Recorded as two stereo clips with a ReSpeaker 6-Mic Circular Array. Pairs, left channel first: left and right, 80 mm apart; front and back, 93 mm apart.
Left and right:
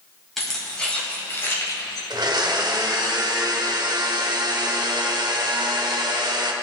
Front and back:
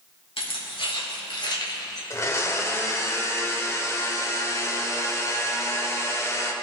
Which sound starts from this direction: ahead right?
A blender, at 2.1 s.